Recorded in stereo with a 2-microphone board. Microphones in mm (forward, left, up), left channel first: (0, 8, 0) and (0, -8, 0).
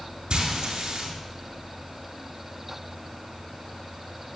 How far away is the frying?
About 4.5 m.